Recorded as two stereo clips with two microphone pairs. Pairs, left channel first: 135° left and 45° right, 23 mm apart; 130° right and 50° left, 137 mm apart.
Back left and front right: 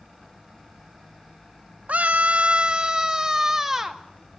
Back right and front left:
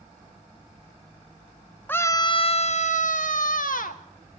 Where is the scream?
50° right, 1.1 m; by 4.0 s 125° right, 2.5 m.